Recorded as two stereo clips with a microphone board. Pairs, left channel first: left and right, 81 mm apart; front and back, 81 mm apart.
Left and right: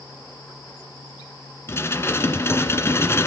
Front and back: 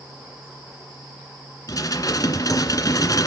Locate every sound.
1.7 s dishes clattering: 35° left, 2.0 m